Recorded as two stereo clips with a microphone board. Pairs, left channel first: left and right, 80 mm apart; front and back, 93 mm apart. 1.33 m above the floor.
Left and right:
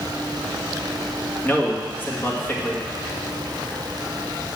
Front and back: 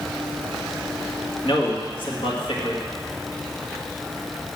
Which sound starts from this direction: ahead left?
A man speaking, at 1.4 s.